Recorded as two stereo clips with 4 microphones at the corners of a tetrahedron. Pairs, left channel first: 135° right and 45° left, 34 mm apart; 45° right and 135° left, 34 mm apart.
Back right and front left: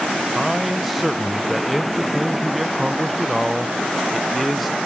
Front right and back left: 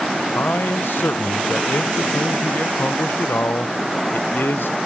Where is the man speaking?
45° right, 0.6 m.